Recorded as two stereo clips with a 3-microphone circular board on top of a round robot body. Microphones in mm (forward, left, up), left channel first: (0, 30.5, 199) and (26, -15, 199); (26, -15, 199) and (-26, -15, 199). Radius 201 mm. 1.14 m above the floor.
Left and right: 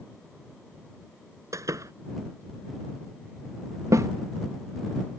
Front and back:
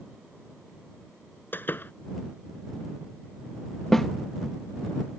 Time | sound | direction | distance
1.5 | a door slam | 50° right | ?
3.9 | a snare drum | 85° right | ?